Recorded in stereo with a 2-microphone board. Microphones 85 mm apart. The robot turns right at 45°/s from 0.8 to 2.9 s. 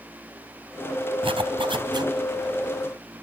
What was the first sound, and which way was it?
A zipper, 90° right.